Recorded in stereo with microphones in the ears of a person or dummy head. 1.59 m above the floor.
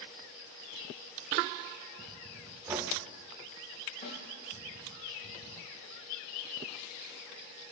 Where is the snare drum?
35° left (ahead or behind), 7.5 m.